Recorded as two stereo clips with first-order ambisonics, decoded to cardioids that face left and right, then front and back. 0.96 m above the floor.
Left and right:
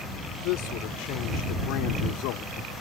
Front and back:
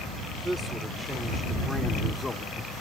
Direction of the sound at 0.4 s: 95° left.